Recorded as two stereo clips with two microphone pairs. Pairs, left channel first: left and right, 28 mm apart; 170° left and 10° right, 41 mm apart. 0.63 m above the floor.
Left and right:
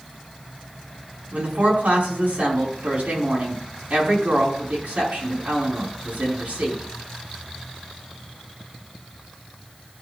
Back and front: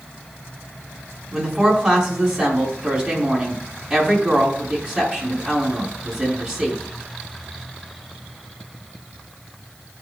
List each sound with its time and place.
1.3 s a woman speaking: 75° right, 4.5 m